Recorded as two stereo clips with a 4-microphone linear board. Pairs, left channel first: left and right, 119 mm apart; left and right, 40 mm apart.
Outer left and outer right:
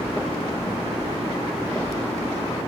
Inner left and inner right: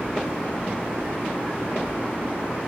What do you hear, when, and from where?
1.0 s a whoosh: 20° right (ahead or behind), 1.2 m